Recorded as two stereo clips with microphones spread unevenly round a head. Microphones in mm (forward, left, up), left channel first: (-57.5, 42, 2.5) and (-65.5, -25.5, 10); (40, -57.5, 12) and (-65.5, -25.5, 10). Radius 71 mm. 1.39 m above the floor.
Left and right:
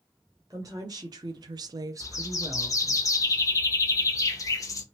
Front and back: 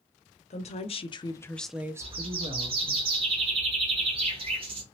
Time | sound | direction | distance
0.5 | a woman speaking | 35° right | 0.9 m
2.0 | a bird | 115° left | 0.9 m